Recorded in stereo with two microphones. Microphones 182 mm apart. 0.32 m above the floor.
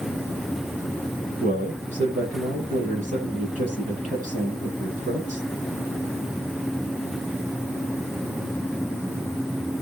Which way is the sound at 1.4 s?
45° right (ahead or behind).